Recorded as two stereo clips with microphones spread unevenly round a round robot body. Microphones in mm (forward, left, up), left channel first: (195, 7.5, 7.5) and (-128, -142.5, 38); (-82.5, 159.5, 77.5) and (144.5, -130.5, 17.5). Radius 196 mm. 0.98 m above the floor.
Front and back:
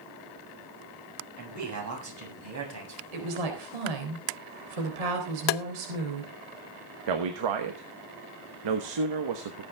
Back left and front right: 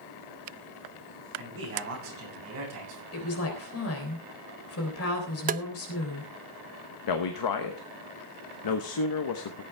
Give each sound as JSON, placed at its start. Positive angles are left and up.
{"t": 1.4, "sound": "a man speaking", "azimuth_deg": -115, "distance_m": 7.0}
{"t": 3.1, "sound": "a woman speaking", "azimuth_deg": -175, "distance_m": 4.0}
{"t": 5.5, "sound": "tapping", "azimuth_deg": 15, "distance_m": 0.5}
{"t": 7.1, "sound": "a man speaking", "azimuth_deg": 170, "distance_m": 1.2}